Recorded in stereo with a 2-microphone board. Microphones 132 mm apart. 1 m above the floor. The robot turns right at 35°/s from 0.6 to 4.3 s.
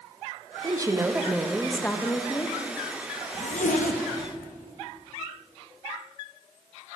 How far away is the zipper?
About 0.7 m.